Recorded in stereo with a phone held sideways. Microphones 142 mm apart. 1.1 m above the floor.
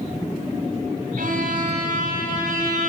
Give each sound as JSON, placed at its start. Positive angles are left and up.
{"t": 1.2, "sound": "a violin", "side_deg": -85, "distance_m": 4.0}